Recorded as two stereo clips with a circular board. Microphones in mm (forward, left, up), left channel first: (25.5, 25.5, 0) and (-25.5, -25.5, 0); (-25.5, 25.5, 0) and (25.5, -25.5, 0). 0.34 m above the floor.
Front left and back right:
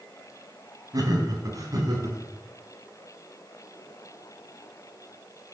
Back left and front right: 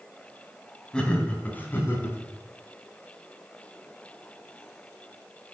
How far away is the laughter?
About 2 m.